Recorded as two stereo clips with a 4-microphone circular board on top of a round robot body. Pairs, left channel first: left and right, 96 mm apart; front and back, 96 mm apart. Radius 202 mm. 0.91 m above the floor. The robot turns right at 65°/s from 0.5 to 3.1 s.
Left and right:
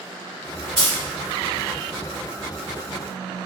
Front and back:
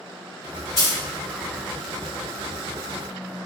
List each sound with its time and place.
0.8 s a dropped coin: 60° right, 0.8 m; by 1.0 s 45° right, 0.8 m